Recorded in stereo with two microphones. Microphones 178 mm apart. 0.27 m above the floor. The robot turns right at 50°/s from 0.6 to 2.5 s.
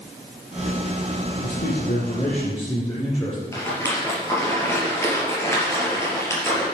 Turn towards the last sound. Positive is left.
turn(degrees=15)  # may be behind; listen again after turning